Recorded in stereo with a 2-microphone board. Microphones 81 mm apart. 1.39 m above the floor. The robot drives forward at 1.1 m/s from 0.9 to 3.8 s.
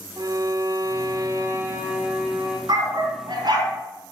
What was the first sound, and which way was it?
A violin, 50° right (ahead or behind).